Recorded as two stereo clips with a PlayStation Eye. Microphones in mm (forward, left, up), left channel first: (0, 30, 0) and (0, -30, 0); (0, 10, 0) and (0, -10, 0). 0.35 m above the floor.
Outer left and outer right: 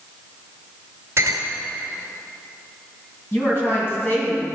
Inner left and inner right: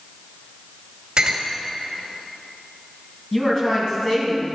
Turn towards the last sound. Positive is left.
turn(degrees=35)  # may be behind; listen again after turning